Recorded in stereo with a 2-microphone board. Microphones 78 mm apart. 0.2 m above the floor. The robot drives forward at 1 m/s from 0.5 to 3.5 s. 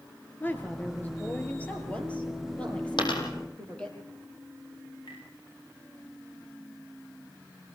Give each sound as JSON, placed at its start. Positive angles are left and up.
{"t": 0.4, "sound": "a woman speaking", "side_deg": 25, "distance_m": 3.5}
{"t": 3.0, "sound": "a dropped coin", "side_deg": 80, "distance_m": 4.5}
{"t": 5.1, "sound": "tapping", "side_deg": 70, "distance_m": 10.0}